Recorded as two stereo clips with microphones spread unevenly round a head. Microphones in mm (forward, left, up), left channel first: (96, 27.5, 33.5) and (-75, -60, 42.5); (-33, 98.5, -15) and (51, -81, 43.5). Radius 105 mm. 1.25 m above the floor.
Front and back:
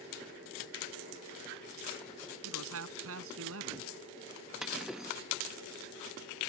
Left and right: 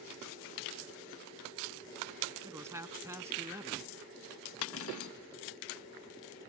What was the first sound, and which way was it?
A man speaking, 140° right.